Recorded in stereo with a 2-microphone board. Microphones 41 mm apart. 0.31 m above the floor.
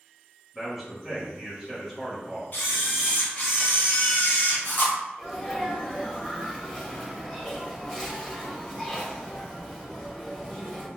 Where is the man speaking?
10° right (ahead or behind), 1.1 m.